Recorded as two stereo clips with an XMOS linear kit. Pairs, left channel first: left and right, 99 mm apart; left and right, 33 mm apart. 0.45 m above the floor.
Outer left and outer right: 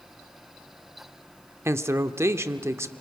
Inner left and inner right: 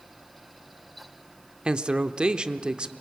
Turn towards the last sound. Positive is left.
turn(degrees=-25)  # may be behind; listen again after turning